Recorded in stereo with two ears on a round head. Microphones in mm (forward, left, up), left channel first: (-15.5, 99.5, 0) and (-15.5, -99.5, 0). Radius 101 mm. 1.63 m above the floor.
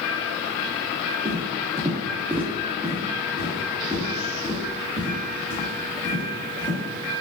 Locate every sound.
1.2 s footsteps: 25° right (ahead or behind), 1.8 m; by 6.8 s 35° left (ahead or behind), 2.5 m